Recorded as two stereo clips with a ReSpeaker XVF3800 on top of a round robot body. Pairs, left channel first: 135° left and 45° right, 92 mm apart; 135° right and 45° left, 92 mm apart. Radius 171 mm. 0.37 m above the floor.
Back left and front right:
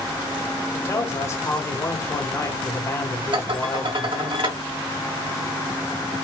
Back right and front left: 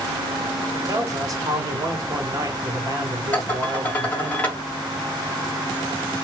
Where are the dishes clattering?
65° right, 2 m.